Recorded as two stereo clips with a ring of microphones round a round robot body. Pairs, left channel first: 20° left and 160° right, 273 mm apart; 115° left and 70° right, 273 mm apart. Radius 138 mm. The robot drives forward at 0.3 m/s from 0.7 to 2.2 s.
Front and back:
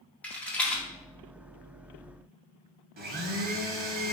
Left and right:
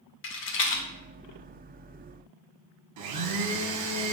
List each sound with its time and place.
0.2 s a rattle: 105° left, 0.6 m; by 0.8 s 110° left, 0.7 m
3.0 s a blender: 100° right, 0.6 m